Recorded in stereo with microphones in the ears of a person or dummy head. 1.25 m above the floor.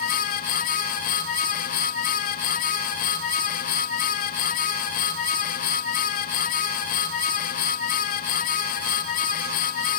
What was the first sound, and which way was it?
Only background noise.